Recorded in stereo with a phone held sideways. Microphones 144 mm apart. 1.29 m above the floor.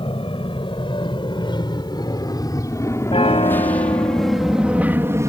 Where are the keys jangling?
No keys jangling in this recording.